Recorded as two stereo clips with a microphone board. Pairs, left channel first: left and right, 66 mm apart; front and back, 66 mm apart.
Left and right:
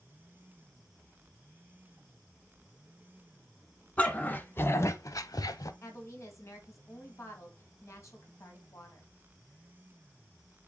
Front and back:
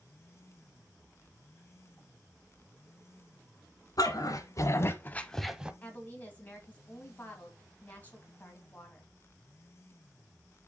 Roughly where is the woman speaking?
Ahead left.